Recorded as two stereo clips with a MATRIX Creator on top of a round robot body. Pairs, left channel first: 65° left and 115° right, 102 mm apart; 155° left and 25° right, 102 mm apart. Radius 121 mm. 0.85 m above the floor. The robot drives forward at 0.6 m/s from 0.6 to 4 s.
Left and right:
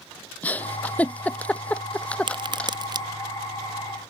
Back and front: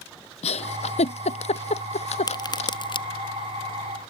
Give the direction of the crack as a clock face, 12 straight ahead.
5 o'clock.